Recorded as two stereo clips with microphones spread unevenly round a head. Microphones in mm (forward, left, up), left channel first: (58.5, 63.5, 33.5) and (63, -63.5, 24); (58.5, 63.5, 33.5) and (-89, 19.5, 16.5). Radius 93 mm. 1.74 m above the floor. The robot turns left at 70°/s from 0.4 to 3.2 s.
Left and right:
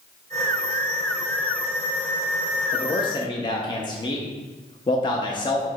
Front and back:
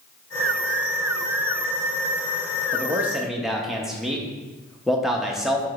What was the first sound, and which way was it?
A man speaking, 135° left.